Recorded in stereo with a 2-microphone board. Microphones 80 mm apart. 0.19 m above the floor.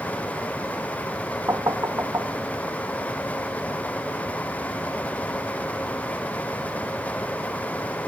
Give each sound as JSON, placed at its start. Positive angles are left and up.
{"t": 1.5, "sound": "knocking", "side_deg": -45}